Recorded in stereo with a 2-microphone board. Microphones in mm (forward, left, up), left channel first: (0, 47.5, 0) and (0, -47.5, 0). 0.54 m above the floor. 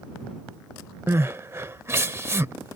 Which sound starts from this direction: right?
Crying, at 1.1 s.